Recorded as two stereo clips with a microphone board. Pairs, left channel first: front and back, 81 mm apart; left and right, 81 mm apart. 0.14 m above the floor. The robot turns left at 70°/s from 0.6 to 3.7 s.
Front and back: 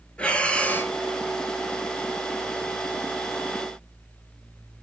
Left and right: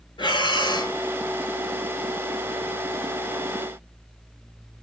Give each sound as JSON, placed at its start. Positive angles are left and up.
{"t": 0.2, "sound": "breathing", "azimuth_deg": 75, "distance_m": 0.5}